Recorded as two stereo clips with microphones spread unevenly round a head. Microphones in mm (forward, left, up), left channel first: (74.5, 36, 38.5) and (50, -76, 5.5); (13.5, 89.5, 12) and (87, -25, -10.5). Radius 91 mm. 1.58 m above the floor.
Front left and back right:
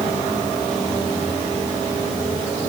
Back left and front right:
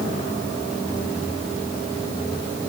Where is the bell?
I don't hear a bell.